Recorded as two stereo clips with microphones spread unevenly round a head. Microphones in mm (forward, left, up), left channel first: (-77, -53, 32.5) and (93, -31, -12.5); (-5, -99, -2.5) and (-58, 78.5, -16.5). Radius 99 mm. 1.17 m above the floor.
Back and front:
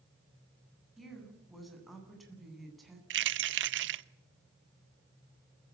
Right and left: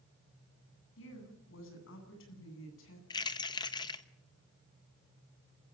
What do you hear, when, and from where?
1.0 s a woman speaking: 85° right, 9.5 m
3.1 s keys jangling: straight ahead, 0.9 m